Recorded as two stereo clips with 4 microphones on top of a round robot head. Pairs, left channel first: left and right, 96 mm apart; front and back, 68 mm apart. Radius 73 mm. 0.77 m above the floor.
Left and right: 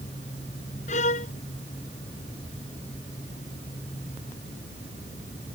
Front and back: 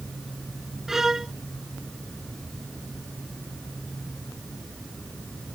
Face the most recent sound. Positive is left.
turn(degrees=95)